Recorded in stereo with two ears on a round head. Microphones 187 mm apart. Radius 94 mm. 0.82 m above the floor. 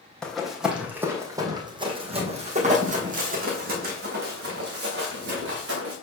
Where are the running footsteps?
5° left (ahead or behind), 1.7 m; by 5.9 s 65° right (ahead or behind), 3.5 m.